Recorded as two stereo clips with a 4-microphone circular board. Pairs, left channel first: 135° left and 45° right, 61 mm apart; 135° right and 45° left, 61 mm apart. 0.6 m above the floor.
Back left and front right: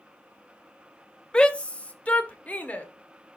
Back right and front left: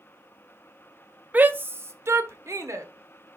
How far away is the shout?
About 0.6 m.